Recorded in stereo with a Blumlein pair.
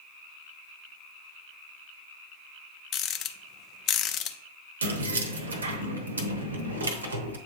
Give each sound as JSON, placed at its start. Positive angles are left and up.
{"t": 2.9, "sound": "a rattle", "azimuth_deg": 35, "distance_m": 0.6}
{"t": 4.8, "sound": "keys jangling", "azimuth_deg": -70, "distance_m": 0.9}